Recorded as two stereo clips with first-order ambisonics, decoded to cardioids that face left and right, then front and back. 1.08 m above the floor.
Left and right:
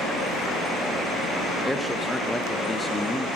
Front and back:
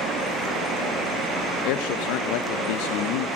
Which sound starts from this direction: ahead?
A man speaking, at 1.6 s.